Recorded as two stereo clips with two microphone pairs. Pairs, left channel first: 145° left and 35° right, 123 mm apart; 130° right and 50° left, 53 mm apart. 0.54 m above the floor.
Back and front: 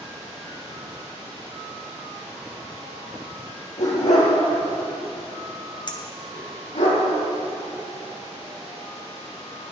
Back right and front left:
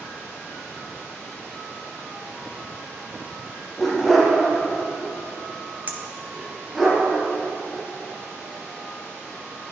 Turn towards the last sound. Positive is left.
turn(degrees=100)